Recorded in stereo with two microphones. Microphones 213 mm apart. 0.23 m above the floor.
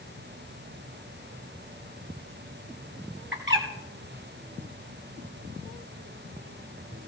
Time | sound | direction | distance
3.3 | a bird | 65° right (ahead or behind) | 3 m